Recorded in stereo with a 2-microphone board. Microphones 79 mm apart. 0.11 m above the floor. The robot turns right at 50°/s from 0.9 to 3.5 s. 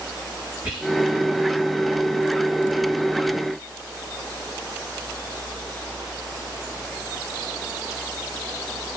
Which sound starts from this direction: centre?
Whispering, at 0.6 s.